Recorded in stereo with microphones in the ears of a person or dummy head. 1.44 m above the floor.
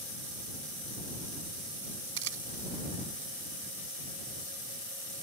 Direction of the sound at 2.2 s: 65° right (ahead or behind).